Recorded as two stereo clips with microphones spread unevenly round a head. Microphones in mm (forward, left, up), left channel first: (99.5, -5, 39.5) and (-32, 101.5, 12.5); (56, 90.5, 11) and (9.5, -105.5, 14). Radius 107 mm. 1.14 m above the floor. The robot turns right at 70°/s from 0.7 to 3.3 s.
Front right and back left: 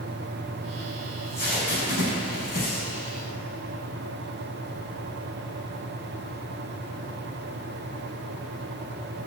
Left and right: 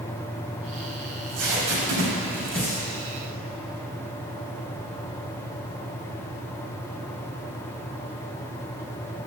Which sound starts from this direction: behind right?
Tape being pulled, at 1.1 s.